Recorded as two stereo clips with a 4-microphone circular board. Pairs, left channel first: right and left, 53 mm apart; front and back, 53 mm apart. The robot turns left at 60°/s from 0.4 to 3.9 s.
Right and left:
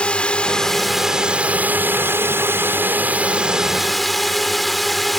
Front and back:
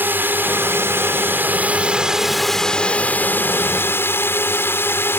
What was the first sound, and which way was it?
A drone, 150° right.